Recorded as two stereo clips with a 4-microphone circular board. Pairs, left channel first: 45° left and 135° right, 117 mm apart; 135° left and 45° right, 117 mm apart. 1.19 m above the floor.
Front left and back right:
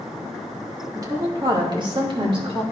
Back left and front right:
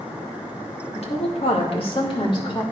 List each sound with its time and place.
0.9 s a woman speaking: 165° left, 1.8 m; by 2.6 s 175° right, 3 m